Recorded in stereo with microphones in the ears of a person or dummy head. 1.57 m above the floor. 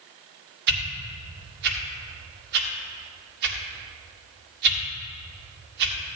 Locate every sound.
0.7 s a whoosh: 60° right (ahead or behind), 1.5 m